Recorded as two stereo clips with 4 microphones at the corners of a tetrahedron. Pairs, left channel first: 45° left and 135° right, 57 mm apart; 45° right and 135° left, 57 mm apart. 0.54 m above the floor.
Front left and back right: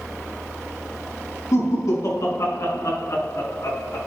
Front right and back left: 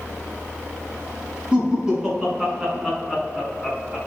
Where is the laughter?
60° left, 6 m; by 4.0 s 45° left, 5 m.